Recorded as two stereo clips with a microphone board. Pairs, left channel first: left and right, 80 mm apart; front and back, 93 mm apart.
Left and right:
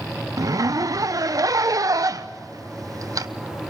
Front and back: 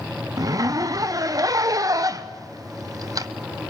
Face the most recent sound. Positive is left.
turn(degrees=-130)